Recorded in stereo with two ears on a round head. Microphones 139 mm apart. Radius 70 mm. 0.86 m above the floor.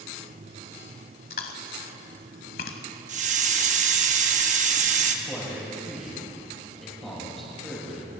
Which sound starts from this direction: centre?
A man speaking, at 5.2 s.